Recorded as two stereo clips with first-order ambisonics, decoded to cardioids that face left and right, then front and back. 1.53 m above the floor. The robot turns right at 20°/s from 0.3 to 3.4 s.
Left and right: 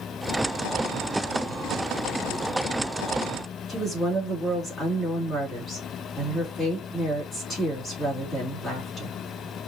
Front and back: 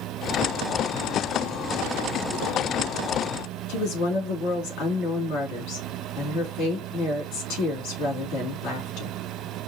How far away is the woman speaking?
About 3 m.